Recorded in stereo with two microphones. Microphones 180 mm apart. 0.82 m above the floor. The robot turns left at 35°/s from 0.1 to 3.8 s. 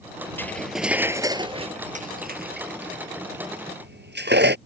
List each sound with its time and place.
0.4 s cutlery clinking: 10° left (ahead or behind); by 4.6 s 70° right (ahead or behind)